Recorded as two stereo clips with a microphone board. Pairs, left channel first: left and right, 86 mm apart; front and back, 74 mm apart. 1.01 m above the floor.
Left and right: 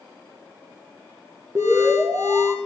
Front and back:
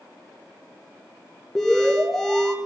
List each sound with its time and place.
1.6 s an alarm: 85° right, 1.4 m